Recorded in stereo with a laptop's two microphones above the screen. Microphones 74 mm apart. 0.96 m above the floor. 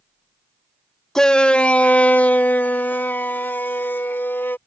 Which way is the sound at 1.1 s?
5° left (ahead or behind).